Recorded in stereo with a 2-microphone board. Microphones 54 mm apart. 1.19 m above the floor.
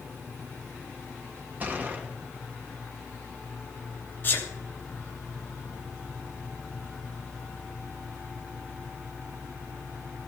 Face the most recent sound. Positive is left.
turn(degrees=40)  # may be behind; listen again after turning